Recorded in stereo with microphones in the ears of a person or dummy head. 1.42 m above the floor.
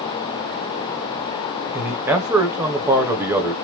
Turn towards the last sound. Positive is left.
turn(degrees=-5)  # may be behind; listen again after turning